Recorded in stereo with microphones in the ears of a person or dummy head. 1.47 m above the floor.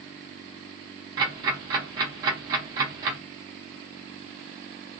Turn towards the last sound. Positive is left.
turn(degrees=-20)  # may be behind; listen again after turning